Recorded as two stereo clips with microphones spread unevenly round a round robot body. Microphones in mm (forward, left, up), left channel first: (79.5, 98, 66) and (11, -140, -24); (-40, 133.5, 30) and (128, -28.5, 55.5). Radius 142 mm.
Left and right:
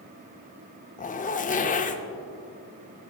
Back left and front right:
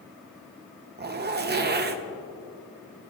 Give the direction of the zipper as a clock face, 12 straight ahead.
12 o'clock.